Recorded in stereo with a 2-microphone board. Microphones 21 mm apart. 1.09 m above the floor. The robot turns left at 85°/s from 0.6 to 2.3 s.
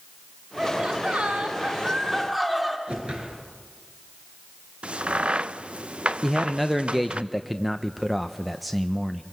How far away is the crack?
About 0.6 m.